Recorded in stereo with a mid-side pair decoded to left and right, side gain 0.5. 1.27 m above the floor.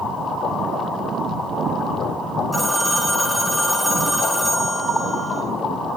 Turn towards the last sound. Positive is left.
turn(degrees=10)